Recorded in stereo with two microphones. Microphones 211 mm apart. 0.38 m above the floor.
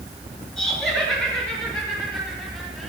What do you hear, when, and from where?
0.6 s laughter: 5° left (ahead or behind), 7 m; by 2.9 s centre (ahead or behind), 10 m